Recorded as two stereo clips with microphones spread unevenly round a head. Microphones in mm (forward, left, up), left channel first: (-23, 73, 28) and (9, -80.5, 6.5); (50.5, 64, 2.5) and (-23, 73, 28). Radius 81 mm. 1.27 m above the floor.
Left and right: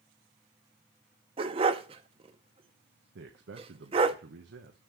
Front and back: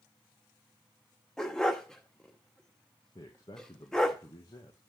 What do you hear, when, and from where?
1.4 s a dog barking: 120° right, 0.7 m
3.1 s a man speaking: 65° right, 1.0 m